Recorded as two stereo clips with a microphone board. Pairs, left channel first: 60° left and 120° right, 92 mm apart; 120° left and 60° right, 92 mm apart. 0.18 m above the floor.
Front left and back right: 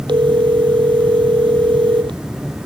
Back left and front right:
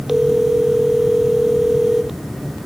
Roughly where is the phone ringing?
Behind right.